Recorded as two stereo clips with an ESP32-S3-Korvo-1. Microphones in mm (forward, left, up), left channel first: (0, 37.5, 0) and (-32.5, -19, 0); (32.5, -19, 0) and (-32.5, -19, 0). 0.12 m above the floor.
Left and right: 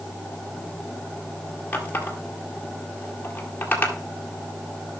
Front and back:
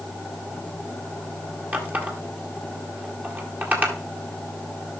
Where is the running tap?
120° left, 1.9 m.